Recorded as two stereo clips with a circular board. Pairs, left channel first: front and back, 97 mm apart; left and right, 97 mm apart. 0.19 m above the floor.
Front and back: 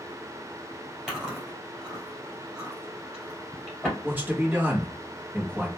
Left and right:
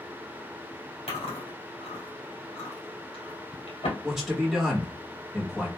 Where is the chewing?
95° left, 1.9 m.